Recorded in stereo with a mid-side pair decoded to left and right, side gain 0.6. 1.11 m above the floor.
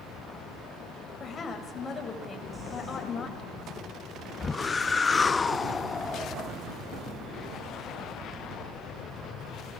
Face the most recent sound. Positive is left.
turn(degrees=25)